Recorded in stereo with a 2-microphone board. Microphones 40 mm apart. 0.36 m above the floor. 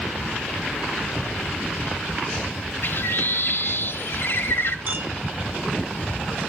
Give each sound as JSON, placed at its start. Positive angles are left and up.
{"t": 2.8, "sound": "a bird", "side_deg": 60, "distance_m": 0.7}
{"t": 4.9, "sound": "a clink", "side_deg": -45, "distance_m": 1.9}